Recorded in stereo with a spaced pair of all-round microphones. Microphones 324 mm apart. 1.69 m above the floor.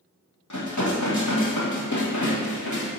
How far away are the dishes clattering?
About 1.4 m.